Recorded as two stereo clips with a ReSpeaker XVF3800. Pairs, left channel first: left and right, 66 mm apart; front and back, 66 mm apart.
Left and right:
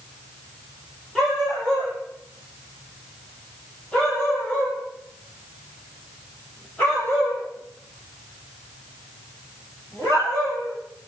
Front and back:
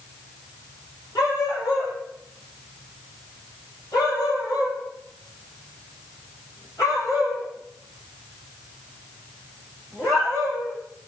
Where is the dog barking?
5° left, 8.5 m; by 10.8 s 35° left, 14 m.